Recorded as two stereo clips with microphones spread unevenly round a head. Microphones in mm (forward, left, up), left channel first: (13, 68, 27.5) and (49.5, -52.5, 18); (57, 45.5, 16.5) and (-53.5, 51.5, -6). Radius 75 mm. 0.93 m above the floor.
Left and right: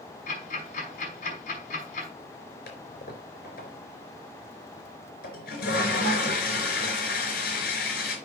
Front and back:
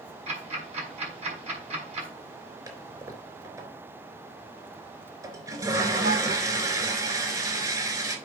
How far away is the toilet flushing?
About 3.5 m.